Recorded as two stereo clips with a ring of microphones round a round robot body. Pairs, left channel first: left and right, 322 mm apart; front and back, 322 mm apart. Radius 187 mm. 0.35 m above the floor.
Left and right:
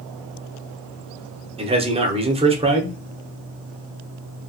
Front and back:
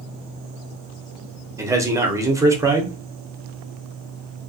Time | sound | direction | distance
1.6 | a man speaking | 115° right | 0.8 m